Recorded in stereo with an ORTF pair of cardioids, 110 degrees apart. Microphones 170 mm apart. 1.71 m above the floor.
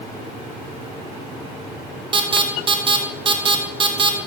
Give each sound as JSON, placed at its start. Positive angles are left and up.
{"t": 2.1, "sound": "an alarm", "azimuth_deg": -30, "distance_m": 1.6}